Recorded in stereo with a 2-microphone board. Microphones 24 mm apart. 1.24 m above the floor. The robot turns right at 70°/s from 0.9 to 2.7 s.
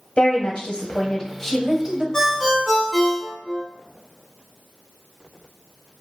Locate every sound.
0.2 s a woman speaking: 130° left, 0.7 m; by 2.0 s 150° right, 0.7 m
2.1 s a ringtone: 155° left, 0.9 m; by 3.6 s 170° right, 0.9 m